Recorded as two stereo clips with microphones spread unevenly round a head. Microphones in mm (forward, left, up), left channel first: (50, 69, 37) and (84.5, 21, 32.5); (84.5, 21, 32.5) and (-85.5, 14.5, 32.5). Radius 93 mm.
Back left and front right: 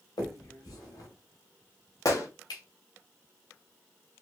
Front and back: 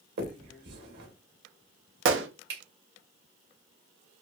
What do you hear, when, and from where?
0.2 s a finger snap: 155° left, 1.6 m
2.0 s a gunshot: straight behind, 0.9 m